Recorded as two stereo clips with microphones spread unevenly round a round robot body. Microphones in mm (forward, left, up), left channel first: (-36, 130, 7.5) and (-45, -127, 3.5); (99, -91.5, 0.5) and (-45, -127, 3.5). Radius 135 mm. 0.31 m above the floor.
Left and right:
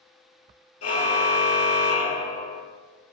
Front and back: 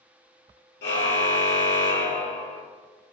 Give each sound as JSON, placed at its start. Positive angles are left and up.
{"t": 0.8, "sound": "a car horn", "azimuth_deg": 40, "distance_m": 3.5}